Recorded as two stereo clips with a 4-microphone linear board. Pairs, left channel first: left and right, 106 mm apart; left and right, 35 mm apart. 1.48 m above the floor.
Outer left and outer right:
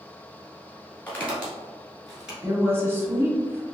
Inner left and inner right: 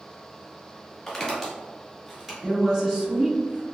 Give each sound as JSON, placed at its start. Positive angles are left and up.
{"t": 1.1, "sound": "footsteps", "side_deg": 15, "distance_m": 1.5}
{"t": 2.4, "sound": "a woman speaking", "side_deg": -20, "distance_m": 0.9}